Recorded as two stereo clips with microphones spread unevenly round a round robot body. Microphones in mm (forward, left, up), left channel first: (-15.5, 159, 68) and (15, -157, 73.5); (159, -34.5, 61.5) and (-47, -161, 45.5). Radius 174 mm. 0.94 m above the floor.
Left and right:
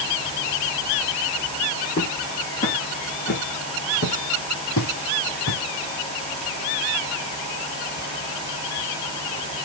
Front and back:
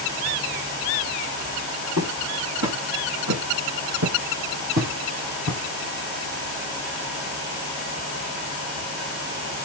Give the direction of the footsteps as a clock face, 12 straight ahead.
7 o'clock.